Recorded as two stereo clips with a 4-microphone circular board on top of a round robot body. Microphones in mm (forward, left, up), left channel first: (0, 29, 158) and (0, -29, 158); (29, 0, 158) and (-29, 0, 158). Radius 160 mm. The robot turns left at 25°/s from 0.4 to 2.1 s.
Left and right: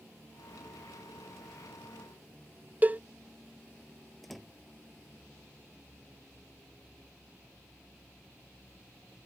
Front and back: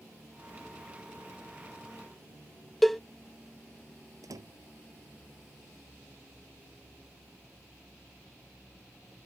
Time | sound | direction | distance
2.8 | a cowbell | 85° right | ?
4.2 | a door slam | straight behind | ?